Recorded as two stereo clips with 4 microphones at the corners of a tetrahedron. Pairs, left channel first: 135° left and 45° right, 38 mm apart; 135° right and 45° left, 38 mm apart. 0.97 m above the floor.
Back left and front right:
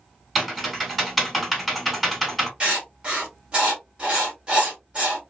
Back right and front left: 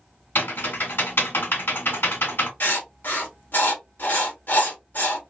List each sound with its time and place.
0.3 s typing on a keyboard: 130° right, 2.0 m
2.6 s writing: 105° right, 1.4 m